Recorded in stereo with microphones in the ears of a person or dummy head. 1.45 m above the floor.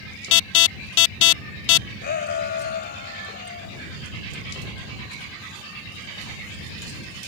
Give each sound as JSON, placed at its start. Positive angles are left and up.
{"t": 0.3, "sound": "an alarm", "side_deg": 65}
{"t": 2.0, "sound": "a shout", "side_deg": 50}